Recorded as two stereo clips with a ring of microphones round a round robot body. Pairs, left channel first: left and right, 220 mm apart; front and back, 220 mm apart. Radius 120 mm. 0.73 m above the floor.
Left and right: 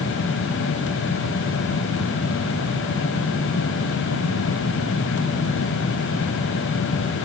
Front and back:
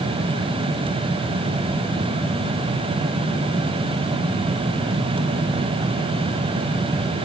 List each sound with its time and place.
Only background noise.